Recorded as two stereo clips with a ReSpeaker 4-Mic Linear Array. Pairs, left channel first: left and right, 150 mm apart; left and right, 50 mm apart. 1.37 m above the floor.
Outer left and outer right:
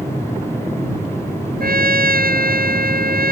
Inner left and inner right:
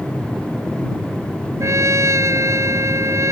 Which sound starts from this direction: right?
A trumpet, at 1.6 s.